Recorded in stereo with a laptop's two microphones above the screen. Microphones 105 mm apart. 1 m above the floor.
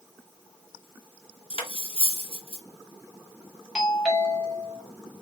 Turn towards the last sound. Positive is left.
turn(degrees=-5)  # may be behind; listen again after turning